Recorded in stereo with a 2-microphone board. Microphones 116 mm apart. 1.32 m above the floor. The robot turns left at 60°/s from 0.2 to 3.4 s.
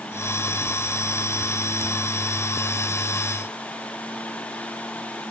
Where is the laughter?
No laughter in this recording.